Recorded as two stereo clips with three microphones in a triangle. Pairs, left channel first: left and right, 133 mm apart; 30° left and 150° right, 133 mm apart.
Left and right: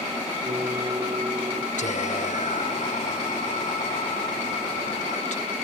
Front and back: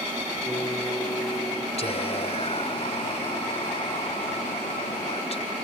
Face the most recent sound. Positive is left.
turn(degrees=70)